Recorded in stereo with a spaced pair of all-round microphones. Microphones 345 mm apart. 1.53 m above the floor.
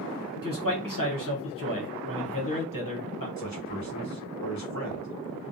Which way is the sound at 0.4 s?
65° left (ahead or behind).